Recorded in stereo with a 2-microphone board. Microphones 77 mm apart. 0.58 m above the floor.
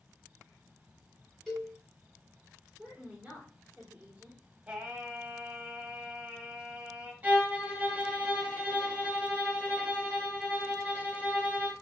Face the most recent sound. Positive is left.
turn(degrees=-20)  # may be behind; listen again after turning